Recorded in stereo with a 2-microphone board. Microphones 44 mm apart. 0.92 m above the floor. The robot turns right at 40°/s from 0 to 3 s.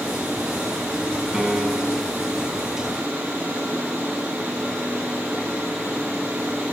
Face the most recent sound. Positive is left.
turn(degrees=-115)